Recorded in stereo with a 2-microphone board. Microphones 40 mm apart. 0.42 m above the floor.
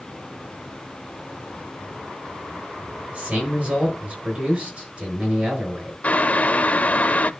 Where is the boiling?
35° left (ahead or behind), 0.5 m.